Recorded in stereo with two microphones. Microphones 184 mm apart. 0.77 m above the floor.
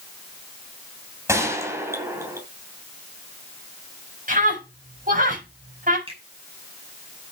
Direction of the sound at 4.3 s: 50° right (ahead or behind).